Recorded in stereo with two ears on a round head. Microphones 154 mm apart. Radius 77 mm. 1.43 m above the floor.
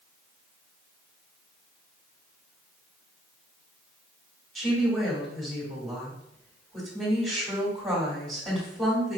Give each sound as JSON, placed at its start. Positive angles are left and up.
{"t": 4.5, "sound": "a woman speaking", "side_deg": 0, "distance_m": 1.8}